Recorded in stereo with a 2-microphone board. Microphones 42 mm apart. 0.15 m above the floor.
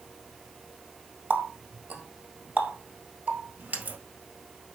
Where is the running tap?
45° right (ahead or behind), 1.7 m.